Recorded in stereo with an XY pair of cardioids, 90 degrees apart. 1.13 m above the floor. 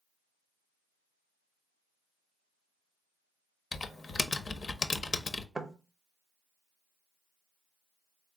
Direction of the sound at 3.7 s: 40° left.